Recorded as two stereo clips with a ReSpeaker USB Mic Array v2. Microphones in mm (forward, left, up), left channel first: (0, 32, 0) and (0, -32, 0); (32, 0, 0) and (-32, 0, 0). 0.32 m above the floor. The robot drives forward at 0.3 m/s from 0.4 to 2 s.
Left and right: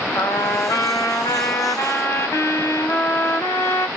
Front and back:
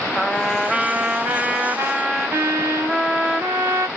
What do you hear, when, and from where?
0.1 s a trumpet: 90° left, 0.7 m; by 3.9 s 130° left, 0.8 m